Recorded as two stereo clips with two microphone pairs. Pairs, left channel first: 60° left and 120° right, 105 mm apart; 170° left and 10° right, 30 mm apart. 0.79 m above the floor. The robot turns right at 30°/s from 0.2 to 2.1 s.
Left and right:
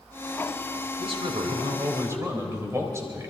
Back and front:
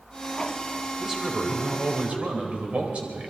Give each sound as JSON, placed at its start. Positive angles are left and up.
{"t": 1.0, "sound": "a man speaking", "azimuth_deg": -90, "distance_m": 3.5}